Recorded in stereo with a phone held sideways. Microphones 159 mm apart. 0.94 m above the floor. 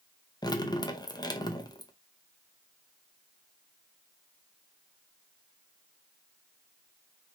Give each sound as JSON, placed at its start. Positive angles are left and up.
{"t": 0.4, "sound": "dripping", "side_deg": 25, "distance_m": 0.7}